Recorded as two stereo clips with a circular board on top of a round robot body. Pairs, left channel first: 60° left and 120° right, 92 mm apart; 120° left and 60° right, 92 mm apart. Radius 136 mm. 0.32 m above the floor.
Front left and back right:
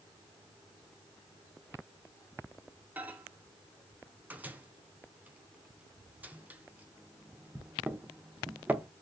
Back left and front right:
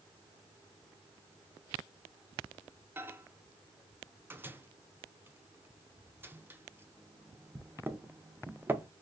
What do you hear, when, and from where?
3.0 s a microwave: 80° right, 0.7 m